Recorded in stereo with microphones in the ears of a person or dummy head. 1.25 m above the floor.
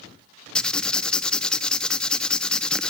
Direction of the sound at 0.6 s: 5° left (ahead or behind).